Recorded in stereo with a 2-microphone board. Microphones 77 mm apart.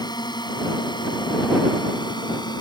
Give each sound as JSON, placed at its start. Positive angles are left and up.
{"t": 0.0, "sound": "a drone", "side_deg": 65}